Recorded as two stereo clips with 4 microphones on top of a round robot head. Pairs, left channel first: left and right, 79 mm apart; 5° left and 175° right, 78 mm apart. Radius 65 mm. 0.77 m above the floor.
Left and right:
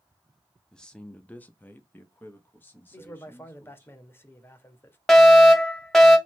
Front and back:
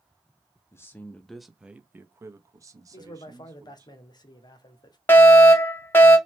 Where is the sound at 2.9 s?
30° left, 1.0 m.